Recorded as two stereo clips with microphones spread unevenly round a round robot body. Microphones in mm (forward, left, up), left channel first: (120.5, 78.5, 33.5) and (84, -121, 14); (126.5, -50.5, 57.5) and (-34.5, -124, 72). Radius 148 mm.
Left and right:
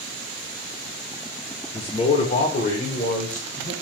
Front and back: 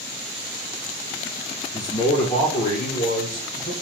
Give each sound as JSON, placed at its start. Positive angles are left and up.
{"t": 1.7, "sound": "a man speaking", "azimuth_deg": 45, "distance_m": 1.1}